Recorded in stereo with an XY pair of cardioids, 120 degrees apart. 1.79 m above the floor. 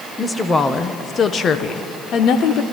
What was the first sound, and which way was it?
A woman speaking, 15° left.